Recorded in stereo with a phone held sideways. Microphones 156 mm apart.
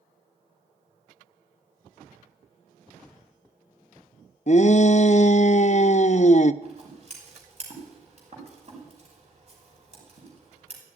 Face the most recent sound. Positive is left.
turn(degrees=-45)  # may be behind; listen again after turning